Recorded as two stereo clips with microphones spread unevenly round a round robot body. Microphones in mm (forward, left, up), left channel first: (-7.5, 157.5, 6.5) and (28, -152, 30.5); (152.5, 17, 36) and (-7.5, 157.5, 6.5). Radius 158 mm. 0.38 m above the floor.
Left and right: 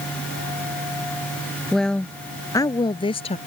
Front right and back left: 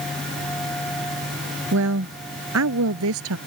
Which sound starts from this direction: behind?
A woman speaking, at 1.7 s.